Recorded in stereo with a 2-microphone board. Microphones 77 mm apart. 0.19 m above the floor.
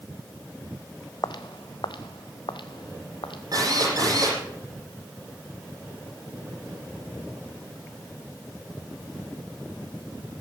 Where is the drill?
50° right (ahead or behind), 7.5 m.